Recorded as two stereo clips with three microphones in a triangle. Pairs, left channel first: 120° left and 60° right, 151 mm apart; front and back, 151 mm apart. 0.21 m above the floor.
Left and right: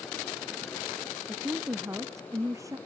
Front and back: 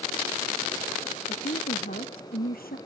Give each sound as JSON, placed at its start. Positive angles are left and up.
{"t": 1.3, "sound": "a woman speaking", "azimuth_deg": 10}